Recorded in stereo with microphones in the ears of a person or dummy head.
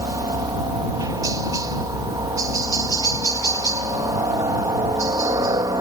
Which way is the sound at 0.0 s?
20° right (ahead or behind).